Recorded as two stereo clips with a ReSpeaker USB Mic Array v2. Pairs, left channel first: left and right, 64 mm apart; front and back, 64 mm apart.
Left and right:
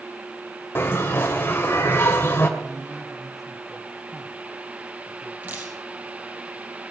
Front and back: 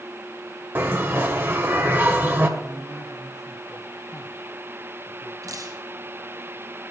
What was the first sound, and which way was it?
A bell, 135° left.